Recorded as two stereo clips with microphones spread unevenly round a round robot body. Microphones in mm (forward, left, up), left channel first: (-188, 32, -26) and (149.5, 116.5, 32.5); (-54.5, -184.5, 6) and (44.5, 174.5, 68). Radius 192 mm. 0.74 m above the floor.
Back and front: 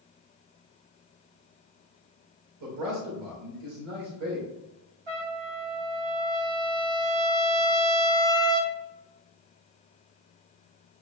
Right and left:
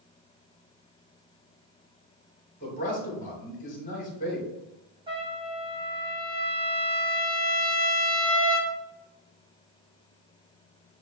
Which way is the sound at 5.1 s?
5° right.